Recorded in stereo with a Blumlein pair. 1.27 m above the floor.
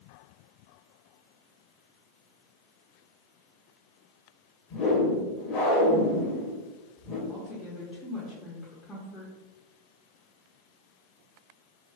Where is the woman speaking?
15° left, 0.8 m.